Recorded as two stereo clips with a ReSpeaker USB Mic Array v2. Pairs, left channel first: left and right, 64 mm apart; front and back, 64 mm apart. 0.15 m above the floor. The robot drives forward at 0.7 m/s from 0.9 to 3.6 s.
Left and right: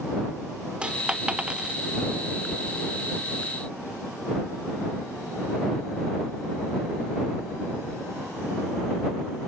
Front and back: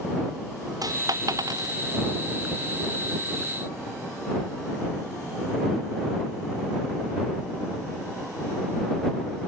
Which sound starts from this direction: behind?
A dropped coin, at 0.8 s.